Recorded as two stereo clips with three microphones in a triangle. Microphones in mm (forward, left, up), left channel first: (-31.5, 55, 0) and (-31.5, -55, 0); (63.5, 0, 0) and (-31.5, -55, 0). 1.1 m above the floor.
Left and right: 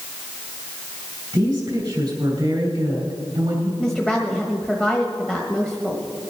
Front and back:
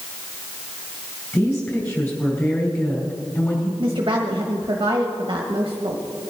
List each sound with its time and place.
1.3 s a woman speaking: 35° right, 5 m
3.8 s a woman speaking: 175° left, 1.2 m